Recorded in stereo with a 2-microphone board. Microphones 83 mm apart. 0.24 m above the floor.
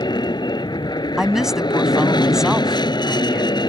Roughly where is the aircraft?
Left.